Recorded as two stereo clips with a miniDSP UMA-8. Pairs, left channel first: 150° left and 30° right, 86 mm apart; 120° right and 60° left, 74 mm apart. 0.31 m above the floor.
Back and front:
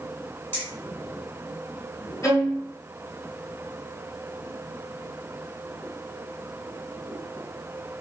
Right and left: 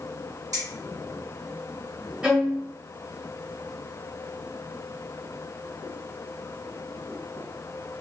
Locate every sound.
0.5 s keys jangling: 90° left, 2 m
2.2 s a violin: 125° left, 1.1 m